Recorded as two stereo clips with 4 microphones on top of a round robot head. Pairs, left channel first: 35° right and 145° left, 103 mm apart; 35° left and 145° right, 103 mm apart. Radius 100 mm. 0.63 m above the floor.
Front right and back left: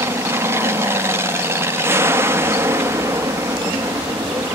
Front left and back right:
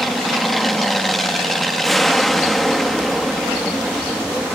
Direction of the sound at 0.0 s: 125° left.